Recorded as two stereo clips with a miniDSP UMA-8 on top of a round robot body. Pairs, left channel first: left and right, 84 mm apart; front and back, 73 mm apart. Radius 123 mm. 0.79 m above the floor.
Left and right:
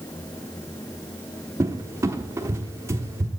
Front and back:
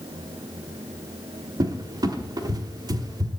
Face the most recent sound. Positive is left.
turn(degrees=-150)